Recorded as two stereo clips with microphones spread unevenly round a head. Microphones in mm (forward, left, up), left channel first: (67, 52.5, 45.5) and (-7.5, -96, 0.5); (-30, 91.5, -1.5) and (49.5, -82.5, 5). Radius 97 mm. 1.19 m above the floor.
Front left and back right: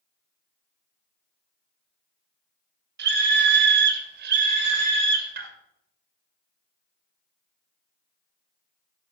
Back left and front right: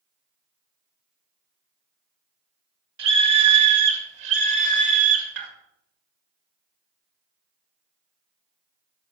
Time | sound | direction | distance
3.0 | a scream | 105° right | 1.8 m